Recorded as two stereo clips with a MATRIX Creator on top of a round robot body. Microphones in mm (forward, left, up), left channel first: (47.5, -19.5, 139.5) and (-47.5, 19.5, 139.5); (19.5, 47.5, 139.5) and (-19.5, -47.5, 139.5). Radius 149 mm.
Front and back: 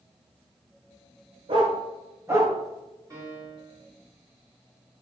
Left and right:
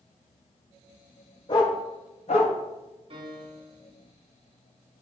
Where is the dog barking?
115° left, 1.4 m; by 2.5 s 85° left, 2 m.